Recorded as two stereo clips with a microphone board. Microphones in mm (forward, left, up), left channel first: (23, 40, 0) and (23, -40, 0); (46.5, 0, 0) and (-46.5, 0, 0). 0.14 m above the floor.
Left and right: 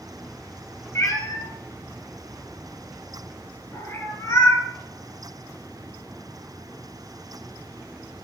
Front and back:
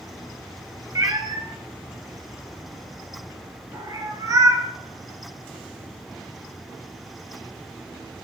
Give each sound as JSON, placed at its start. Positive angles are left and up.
{"t": 0.9, "sound": "a cat meowing", "azimuth_deg": 135, "distance_m": 0.5}